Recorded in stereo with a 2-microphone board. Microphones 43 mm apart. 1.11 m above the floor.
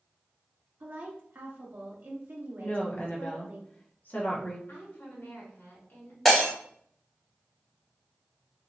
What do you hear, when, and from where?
0.8 s a woman speaking: 55° right (ahead or behind), 0.6 m
2.6 s a woman speaking: 45° left (ahead or behind), 0.7 m
4.7 s a woman speaking: 55° left (ahead or behind), 1.3 m
6.2 s breaking glass: 10° left (ahead or behind), 1.5 m